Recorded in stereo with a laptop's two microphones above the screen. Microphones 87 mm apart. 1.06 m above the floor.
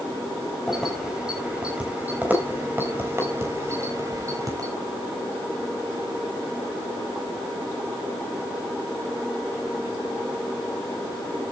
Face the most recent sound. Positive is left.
turn(degrees=-40)  # may be behind; listen again after turning